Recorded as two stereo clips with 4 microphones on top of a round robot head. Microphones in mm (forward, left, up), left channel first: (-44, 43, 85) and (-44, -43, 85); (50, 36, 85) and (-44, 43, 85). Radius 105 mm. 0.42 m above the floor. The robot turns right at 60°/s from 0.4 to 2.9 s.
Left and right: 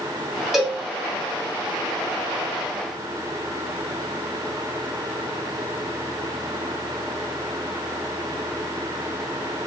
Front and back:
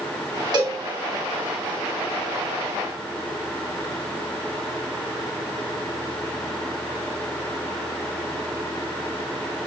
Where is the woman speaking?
I don't hear a woman speaking.